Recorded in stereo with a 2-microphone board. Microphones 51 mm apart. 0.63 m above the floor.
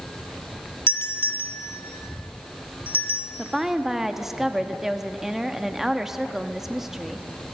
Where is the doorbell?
45° left (ahead or behind), 1.6 m.